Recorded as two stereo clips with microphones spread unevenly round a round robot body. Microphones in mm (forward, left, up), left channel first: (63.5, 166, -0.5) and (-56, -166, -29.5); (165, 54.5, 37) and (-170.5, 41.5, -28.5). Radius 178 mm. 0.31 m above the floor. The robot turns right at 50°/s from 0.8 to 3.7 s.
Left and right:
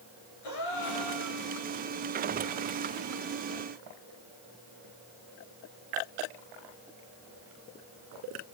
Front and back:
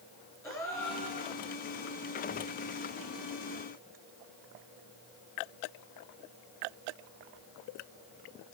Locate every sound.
0.4 s a gasp: 85° left, 5.5 m; by 1.4 s 120° left, 5.5 m